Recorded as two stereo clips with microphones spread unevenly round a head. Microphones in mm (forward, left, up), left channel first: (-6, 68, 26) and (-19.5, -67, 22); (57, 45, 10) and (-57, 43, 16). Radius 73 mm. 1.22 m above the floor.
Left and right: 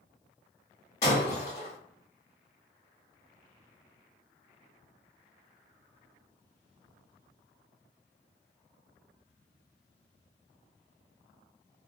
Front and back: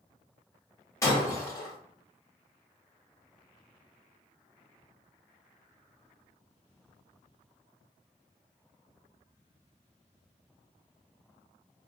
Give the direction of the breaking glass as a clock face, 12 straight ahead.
10 o'clock.